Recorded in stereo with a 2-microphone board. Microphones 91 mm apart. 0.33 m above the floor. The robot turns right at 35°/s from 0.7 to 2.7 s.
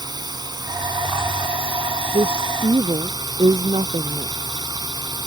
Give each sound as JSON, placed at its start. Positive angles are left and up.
{"t": 0.0, "sound": "a drone", "azimuth_deg": -125}
{"t": 2.1, "sound": "a woman speaking", "side_deg": -75}